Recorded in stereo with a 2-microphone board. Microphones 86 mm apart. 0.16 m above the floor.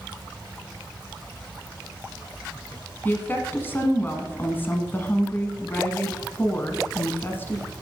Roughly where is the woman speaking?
Left.